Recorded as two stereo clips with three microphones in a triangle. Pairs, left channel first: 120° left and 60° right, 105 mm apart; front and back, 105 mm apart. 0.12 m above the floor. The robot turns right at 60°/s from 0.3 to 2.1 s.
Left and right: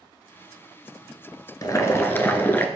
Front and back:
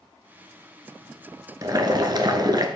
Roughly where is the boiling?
Behind left.